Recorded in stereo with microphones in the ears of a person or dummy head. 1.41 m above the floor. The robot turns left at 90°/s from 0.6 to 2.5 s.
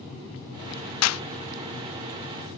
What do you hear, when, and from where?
1.0 s a clap: 85° left; by 1.2 s 75° left (ahead or behind)